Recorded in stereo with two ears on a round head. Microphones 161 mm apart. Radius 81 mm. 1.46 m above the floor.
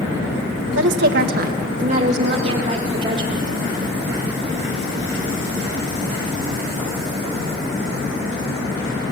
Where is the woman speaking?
75° right (ahead or behind), 1.6 m; by 3.5 s 25° right (ahead or behind), 4.5 m.